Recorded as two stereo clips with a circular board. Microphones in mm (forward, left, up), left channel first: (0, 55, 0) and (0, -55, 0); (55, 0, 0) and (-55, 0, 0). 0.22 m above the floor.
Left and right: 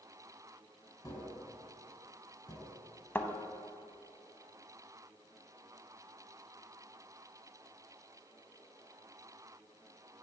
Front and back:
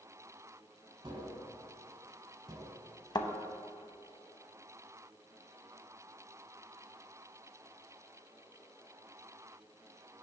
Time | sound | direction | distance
1.0 | tapping | 140° left | 1.2 m
3.1 | a thud | 25° left | 0.5 m